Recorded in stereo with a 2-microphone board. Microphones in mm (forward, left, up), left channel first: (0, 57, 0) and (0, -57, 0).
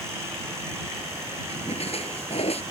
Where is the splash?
65° left (ahead or behind).